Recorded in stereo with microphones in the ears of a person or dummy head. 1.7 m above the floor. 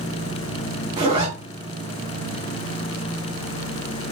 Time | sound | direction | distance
1.0 | a zipper | 35° right (ahead or behind) | 1.2 m